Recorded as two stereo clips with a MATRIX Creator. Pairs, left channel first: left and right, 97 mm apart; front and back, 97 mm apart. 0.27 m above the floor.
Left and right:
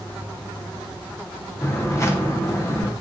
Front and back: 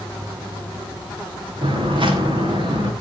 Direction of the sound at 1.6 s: 150° left.